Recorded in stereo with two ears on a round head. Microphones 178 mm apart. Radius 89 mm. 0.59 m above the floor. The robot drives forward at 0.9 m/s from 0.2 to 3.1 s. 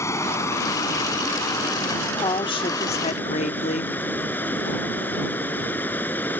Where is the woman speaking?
20° left (ahead or behind); by 4.0 s 35° left (ahead or behind).